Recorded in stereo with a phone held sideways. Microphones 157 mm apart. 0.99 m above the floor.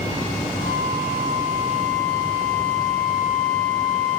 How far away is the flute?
About 4.5 m.